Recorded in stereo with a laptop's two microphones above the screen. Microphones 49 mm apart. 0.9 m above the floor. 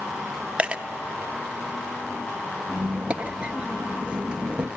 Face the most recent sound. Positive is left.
turn(degrees=-20)  # may be behind; listen again after turning